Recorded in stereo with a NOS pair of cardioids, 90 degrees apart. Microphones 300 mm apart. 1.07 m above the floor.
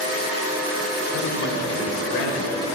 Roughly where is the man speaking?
Left.